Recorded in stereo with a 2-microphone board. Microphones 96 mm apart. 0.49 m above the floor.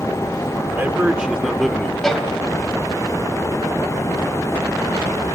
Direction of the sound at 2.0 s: 5° left (ahead or behind).